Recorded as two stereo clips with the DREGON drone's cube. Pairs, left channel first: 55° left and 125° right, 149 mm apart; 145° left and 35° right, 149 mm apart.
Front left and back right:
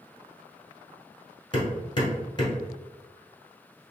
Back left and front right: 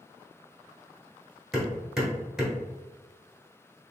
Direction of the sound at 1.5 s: 50° left.